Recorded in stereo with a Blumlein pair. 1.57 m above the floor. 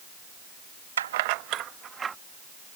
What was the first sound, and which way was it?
Keys jangling, 65° right.